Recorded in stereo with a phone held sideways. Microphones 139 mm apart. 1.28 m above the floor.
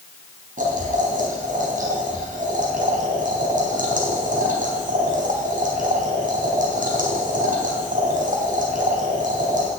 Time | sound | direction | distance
0.6 | boiling | 75° right (ahead or behind) | 4 m